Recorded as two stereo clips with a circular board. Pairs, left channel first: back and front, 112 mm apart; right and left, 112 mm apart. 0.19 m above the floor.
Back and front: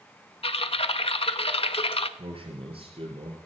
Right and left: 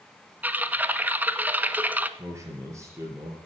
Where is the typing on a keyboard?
160° left, 0.6 m.